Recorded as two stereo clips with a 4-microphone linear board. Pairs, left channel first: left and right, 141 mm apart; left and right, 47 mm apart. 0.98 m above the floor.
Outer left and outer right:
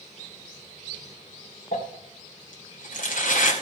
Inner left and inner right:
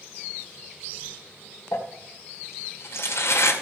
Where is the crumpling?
70° left (ahead or behind), 2.5 m.